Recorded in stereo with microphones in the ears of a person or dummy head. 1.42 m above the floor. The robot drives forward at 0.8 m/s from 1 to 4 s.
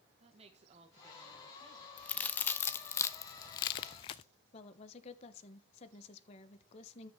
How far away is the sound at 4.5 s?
About 1.5 m.